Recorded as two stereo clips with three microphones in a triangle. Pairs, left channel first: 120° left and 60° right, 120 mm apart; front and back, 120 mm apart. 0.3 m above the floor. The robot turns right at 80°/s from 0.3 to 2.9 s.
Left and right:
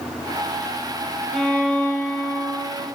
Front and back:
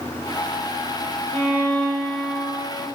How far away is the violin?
About 0.5 m.